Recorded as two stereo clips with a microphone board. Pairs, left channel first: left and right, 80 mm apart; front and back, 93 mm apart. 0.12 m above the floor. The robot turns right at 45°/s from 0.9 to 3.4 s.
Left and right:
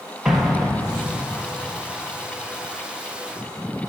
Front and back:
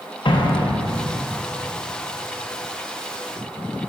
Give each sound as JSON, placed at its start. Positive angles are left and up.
{"t": 0.2, "sound": "an explosion", "azimuth_deg": -10, "distance_m": 0.9}